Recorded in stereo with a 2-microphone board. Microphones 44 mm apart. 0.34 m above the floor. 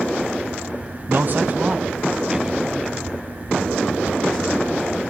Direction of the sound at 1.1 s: 50° right (ahead or behind).